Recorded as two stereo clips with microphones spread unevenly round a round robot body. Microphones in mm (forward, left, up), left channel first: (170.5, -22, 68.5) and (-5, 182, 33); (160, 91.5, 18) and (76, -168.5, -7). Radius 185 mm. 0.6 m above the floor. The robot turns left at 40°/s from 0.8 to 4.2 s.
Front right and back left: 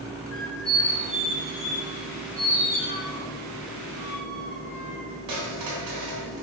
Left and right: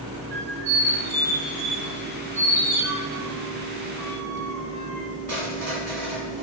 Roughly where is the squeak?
Right.